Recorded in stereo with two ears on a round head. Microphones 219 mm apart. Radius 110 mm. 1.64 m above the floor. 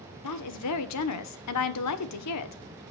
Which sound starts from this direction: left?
A woman speaking, at 0.2 s.